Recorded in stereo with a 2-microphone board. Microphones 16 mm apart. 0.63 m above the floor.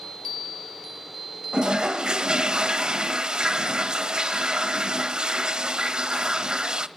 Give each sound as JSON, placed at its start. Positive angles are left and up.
{"t": 1.5, "sound": "a toilet flushing", "side_deg": -75, "distance_m": 0.8}